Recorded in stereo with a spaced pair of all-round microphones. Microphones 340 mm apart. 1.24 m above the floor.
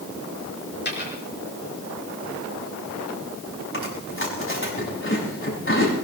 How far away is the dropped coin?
About 4.5 m.